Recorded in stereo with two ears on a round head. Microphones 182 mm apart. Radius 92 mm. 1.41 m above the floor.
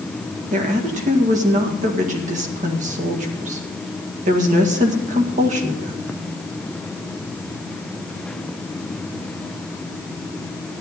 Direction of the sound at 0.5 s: 35° right (ahead or behind).